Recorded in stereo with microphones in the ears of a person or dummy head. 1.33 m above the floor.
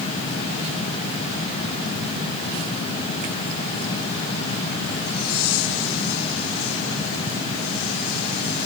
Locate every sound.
Only background noise.